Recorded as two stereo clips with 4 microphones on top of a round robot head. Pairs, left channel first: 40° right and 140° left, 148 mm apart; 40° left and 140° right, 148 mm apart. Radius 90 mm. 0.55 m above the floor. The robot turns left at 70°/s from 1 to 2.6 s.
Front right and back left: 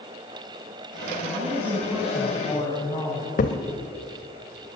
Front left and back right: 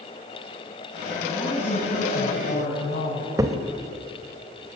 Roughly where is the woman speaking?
Behind left.